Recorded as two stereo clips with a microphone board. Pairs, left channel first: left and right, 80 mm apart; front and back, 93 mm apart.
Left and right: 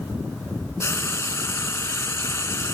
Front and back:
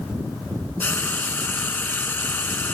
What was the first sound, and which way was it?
Frying, 55° left.